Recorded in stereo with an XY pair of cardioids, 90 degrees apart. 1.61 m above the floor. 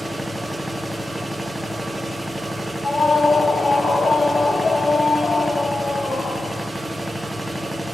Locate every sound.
0.0 s a machine running: 10° right, 1.2 m
2.8 s a scream: 35° left, 9 m